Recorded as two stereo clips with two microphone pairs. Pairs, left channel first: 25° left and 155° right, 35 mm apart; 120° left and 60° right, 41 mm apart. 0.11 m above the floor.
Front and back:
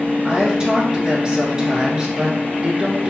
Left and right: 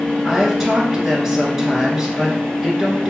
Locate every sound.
0.2 s a woman speaking: 120° right, 1.3 m